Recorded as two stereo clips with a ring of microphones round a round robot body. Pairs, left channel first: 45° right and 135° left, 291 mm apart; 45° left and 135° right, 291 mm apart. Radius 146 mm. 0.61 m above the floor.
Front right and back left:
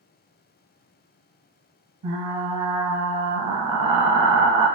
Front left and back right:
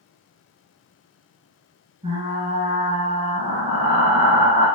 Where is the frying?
150° left, 0.9 m.